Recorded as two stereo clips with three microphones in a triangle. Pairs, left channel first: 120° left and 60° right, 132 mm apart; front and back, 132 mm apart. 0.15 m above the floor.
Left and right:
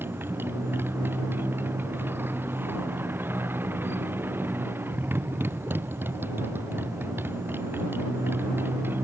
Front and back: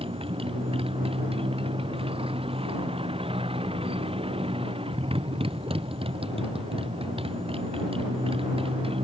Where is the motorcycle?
135° right.